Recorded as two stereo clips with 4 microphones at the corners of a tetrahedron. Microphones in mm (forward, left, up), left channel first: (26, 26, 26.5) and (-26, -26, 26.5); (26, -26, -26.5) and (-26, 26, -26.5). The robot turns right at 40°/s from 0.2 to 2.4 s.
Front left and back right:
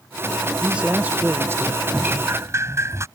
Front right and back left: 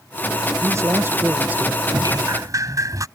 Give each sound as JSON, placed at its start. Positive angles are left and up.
{"t": 0.6, "sound": "a man speaking", "azimuth_deg": 150}
{"t": 1.9, "sound": "dripping", "azimuth_deg": 155}